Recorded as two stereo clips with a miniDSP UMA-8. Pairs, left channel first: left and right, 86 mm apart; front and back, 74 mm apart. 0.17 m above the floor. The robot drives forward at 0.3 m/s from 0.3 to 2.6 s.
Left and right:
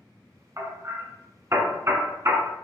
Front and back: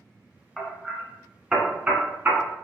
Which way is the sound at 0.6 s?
85° right.